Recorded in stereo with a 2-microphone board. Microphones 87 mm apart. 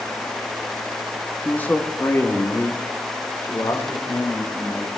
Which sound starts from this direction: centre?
A man speaking, at 1.4 s.